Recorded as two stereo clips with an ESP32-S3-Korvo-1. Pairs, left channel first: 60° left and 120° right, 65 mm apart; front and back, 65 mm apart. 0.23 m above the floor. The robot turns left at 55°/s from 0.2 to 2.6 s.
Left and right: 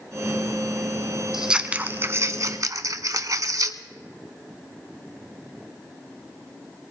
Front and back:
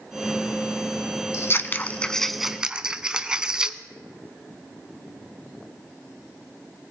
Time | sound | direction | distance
1.3 | scissors | 35° right | 0.6 m